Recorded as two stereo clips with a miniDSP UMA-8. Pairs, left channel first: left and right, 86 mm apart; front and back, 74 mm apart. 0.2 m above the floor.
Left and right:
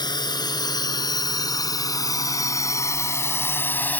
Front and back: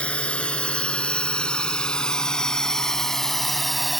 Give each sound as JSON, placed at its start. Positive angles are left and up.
{"t": 0.0, "sound": "a drone", "azimuth_deg": 70}